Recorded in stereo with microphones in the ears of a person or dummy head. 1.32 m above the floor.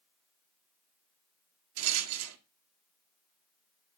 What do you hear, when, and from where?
1.8 s a rattle: 75° right (ahead or behind), 0.6 m